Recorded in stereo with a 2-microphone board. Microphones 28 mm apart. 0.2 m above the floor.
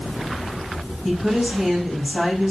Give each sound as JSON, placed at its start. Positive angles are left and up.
{"t": 1.1, "sound": "a woman speaking", "side_deg": -25, "distance_m": 1.3}